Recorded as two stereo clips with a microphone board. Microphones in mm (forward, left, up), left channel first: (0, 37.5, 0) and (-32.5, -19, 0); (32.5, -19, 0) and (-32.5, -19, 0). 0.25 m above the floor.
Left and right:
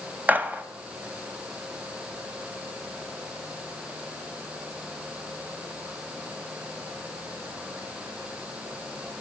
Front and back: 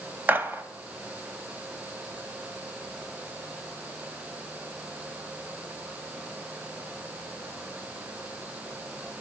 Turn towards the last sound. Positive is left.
turn(degrees=-155)